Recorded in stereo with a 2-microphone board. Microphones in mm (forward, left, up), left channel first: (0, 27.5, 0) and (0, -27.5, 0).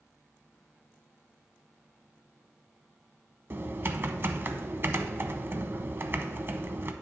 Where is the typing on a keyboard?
45° right (ahead or behind), 0.6 m.